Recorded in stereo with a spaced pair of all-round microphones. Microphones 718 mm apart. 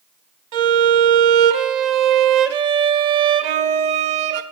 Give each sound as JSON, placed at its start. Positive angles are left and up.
{"t": 0.5, "sound": "a violin", "side_deg": -70, "distance_m": 0.6}